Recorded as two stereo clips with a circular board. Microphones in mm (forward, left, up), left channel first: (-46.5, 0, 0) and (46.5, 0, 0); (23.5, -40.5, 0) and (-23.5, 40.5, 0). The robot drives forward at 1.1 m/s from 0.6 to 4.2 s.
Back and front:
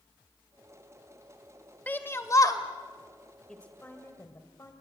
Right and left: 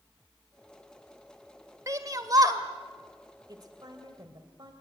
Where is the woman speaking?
100° left, 1.8 m; by 4.7 s 130° left, 2 m.